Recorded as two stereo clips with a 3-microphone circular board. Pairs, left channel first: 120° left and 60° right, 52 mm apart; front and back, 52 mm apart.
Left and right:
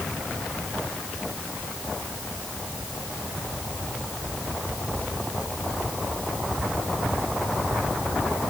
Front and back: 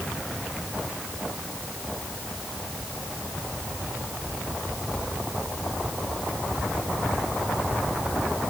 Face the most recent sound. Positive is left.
No sound to turn to.